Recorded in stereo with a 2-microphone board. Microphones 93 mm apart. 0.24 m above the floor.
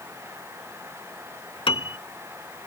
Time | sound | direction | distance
1.7 | a piano | 70° left (ahead or behind) | ?